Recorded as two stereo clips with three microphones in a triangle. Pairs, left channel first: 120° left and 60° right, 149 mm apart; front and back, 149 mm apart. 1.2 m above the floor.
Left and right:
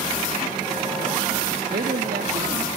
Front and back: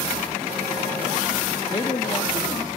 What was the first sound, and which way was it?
A man speaking, 60° right.